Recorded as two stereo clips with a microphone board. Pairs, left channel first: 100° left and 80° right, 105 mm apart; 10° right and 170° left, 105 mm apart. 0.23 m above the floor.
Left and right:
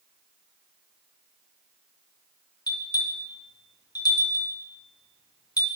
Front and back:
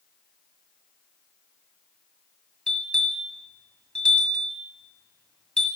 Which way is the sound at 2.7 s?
70° left.